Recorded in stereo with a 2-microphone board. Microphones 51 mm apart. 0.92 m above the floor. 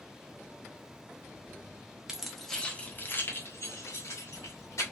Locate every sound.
2.1 s keys jangling: 10° right (ahead or behind), 0.6 m; by 4.8 s 75° left (ahead or behind), 1.4 m